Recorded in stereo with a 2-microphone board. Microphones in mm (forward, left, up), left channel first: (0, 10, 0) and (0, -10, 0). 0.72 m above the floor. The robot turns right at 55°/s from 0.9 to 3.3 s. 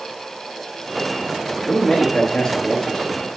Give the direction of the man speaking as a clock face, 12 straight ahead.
11 o'clock.